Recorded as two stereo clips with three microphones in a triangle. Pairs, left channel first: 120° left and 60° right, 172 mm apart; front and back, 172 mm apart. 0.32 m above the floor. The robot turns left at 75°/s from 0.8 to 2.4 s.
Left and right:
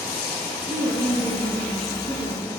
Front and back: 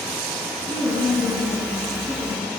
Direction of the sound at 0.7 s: 25° left.